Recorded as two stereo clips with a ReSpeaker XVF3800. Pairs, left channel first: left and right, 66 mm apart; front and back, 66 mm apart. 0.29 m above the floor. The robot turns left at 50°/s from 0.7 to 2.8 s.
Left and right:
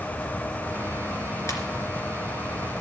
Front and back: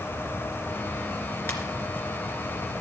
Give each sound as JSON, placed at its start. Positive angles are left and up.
{"t": 1.5, "sound": "a ringtone", "azimuth_deg": 55, "distance_m": 3.0}